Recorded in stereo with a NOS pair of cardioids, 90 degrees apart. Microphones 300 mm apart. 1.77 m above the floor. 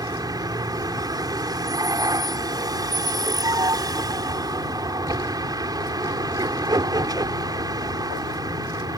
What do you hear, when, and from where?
0.0 s a vehicle: 15° right